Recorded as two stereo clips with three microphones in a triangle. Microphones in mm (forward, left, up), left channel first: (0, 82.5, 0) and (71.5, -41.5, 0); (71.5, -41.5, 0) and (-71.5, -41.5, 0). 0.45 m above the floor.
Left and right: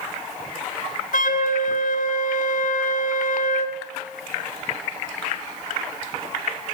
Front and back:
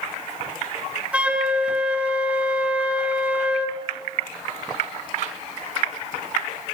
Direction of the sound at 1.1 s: 100° left.